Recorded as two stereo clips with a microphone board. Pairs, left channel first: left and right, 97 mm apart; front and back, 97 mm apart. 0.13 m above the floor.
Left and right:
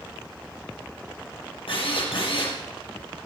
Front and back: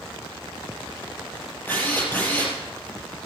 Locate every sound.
1.7 s a drill: 70° left, 4 m